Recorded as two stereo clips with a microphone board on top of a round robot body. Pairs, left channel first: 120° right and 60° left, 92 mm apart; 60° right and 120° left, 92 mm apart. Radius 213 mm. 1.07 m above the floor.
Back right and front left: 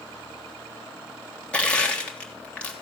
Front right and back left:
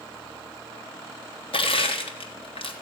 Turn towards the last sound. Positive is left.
turn(degrees=-40)